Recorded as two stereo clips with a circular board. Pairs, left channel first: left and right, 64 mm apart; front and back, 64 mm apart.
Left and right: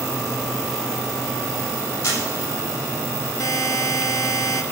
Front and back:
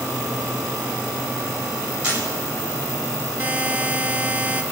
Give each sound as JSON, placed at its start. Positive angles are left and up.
{"t": 2.0, "sound": "a camera shutter", "azimuth_deg": 105, "distance_m": 7.5}
{"t": 3.4, "sound": "a buzzer", "azimuth_deg": 115, "distance_m": 0.9}